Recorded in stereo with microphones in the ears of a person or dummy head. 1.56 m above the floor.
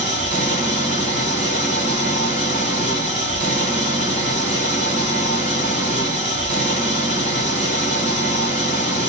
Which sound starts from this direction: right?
An engine running, at 0.0 s.